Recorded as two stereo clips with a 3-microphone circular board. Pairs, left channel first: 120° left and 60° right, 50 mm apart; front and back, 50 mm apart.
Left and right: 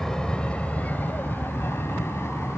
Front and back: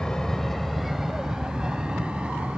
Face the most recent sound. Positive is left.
turn(degrees=115)